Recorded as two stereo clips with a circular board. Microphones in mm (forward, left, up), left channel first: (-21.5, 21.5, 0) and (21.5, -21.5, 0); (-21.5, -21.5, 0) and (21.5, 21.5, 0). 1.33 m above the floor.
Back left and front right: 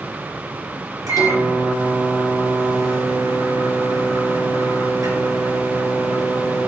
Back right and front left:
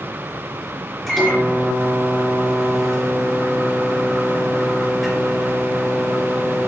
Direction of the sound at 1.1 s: 45° right.